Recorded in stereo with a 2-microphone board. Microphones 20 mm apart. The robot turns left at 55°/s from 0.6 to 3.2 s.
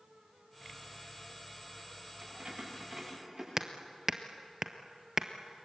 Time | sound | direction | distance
2.2 | keys jangling | 80° right | 8 m
3.6 | hammering | 25° right (ahead or behind) | 1.3 m